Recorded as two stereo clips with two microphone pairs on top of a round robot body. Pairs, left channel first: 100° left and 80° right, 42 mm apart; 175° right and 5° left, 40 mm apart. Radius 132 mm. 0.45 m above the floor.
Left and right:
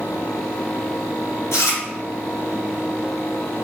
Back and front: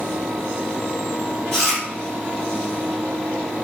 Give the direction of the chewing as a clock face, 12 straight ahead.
8 o'clock.